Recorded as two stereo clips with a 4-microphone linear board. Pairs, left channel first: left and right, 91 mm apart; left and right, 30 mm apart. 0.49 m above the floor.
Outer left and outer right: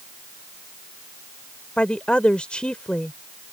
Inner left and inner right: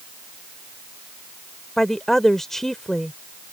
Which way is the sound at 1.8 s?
15° left (ahead or behind).